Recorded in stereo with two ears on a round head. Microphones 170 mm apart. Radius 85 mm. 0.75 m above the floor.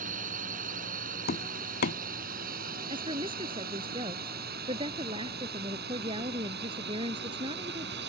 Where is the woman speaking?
25° right (ahead or behind).